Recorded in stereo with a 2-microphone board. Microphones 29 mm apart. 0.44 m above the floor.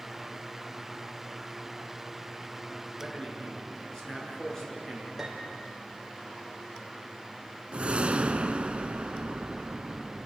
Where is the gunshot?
I don't hear a gunshot.